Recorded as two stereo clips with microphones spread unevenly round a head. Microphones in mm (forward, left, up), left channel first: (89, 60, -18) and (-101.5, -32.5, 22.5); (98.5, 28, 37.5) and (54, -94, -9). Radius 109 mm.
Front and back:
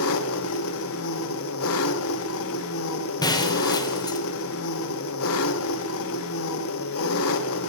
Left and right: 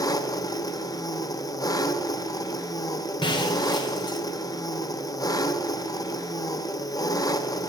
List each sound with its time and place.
0.0 s an engine running: 35° left, 1.0 m
3.2 s breaking glass: 100° left, 1.5 m